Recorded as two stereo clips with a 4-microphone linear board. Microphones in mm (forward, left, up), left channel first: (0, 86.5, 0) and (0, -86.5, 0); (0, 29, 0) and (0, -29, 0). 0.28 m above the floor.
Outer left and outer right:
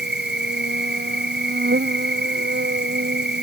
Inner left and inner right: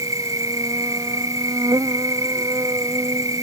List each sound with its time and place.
0.0 s an insect: 80° right